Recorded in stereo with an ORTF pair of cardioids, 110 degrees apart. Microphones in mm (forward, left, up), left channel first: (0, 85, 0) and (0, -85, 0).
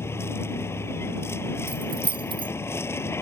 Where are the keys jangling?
30° right.